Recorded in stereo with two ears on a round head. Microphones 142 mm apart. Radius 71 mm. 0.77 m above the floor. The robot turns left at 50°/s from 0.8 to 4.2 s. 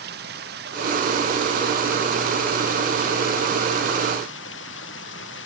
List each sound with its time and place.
0.0 s running water: 110° right; by 5.5 s 80° left